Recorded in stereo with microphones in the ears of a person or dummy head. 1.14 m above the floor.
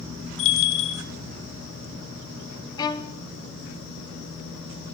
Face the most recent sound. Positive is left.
turn(degrees=25)  # may be behind; listen again after turning